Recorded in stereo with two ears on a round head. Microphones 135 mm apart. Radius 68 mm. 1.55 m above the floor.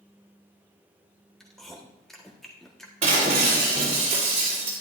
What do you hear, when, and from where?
1.4 s chewing: 5° left (ahead or behind), 1.4 m
3.0 s breaking glass: 45° right (ahead or behind), 4 m